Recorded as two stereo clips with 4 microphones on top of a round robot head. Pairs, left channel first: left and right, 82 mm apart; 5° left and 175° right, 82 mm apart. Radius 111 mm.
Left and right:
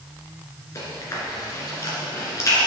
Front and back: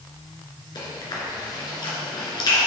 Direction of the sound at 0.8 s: 35° left.